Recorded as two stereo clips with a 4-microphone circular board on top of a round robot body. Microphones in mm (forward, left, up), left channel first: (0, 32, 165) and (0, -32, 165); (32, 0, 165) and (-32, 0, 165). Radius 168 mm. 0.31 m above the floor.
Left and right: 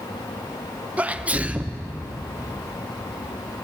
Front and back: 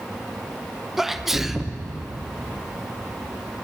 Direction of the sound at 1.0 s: 100° right.